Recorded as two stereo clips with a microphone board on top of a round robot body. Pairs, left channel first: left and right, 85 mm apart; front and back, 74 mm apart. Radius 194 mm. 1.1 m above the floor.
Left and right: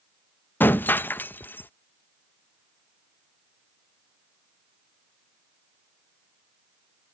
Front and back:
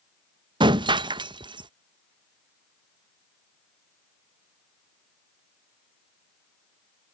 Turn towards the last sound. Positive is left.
turn(degrees=160)